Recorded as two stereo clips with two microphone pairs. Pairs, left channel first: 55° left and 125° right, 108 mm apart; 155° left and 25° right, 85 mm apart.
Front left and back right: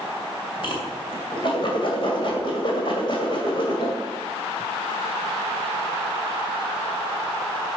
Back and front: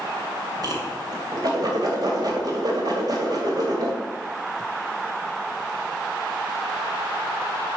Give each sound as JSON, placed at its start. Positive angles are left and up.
{"t": 0.6, "sound": "a whoosh", "azimuth_deg": 15, "distance_m": 2.5}